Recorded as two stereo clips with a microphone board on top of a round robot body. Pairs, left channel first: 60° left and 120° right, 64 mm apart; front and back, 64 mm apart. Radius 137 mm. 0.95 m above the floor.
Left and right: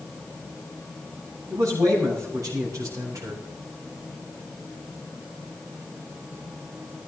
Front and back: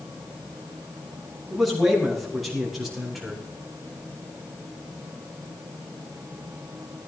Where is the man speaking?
90° right, 7 m.